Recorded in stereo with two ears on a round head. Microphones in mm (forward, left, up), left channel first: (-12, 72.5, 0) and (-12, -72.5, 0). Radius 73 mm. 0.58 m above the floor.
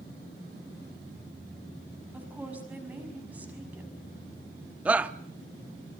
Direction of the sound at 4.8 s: 10° right (ahead or behind).